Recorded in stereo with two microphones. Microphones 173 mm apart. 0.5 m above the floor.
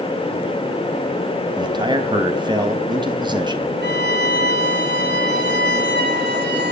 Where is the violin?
80° right, 4.5 m.